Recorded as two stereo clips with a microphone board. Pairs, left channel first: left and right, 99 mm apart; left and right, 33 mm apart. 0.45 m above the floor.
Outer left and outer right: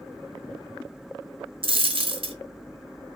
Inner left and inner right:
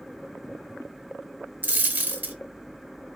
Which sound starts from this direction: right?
A dropped coin, at 1.6 s.